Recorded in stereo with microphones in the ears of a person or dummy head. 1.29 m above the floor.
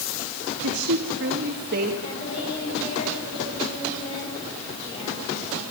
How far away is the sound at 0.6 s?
About 2 m.